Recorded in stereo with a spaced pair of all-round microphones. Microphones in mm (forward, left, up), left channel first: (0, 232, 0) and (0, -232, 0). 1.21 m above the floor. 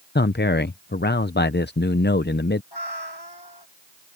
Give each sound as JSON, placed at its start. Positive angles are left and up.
{"t": 0.1, "sound": "a man speaking", "side_deg": 25}
{"t": 2.7, "sound": "a cat meowing", "side_deg": 55}